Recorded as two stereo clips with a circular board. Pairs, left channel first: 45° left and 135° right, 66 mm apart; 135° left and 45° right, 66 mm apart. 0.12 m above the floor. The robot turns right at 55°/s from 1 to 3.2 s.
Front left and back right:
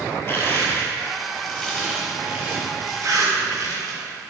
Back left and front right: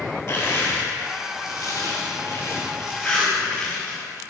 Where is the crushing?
105° left, 3 m; by 4.0 s 135° right, 3 m.